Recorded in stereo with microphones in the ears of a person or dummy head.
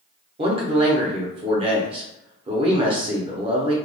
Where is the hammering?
I don't hear hammering.